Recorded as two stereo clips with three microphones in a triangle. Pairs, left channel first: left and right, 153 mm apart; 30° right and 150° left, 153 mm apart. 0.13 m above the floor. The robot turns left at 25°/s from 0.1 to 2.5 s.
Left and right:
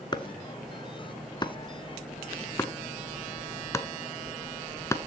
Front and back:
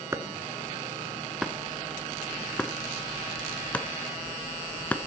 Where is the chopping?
100° left, 0.9 m; by 5.0 s 40° left, 0.9 m.